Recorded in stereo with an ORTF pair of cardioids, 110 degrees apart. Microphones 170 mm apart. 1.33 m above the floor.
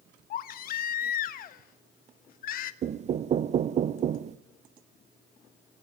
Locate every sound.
0.3 s a baby crying: 65° left, 1.1 m
2.8 s knocking: 45° right, 0.7 m